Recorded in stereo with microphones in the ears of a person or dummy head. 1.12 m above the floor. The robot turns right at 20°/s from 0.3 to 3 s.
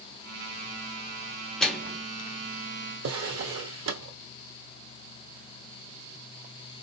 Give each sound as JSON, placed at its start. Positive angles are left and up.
{"t": 1.6, "sound": "a microwave", "side_deg": 5, "distance_m": 0.7}
{"t": 3.0, "sound": "a drawer", "side_deg": -55, "distance_m": 1.1}